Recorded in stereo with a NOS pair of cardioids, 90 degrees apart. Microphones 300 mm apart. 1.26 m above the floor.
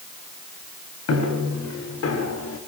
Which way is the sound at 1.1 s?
60° left.